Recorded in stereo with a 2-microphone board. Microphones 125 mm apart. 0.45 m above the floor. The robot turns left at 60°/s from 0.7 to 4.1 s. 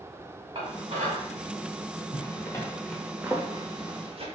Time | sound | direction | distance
0.6 | dishes clattering | 45° right (ahead or behind) | 1.7 m
2.1 | a zipper | 40° left (ahead or behind) | 0.8 m